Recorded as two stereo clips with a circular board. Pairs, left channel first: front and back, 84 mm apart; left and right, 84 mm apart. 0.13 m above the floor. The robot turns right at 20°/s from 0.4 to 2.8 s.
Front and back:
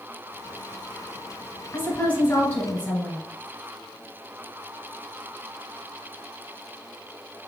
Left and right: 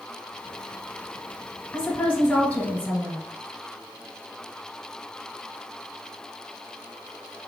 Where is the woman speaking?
30° left, 1.1 m; by 3.2 s 50° left, 1.1 m.